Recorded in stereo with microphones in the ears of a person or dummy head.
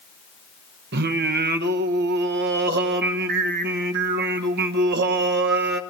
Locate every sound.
0.9 s singing: 60° right (ahead or behind), 0.9 m